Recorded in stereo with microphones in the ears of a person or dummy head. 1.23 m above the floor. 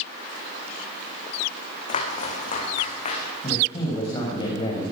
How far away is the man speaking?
About 5.5 m.